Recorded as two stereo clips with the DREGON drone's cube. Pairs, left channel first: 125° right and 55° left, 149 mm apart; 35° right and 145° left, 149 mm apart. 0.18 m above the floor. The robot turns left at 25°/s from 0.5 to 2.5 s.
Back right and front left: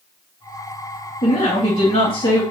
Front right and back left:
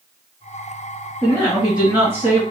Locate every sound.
1.2 s a woman speaking: 125° right, 1.8 m; by 2.4 s 155° right, 1.8 m